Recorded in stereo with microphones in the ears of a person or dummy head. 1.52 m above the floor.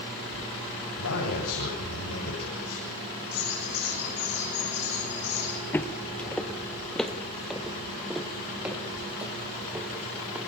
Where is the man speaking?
75° left (ahead or behind), 9 m.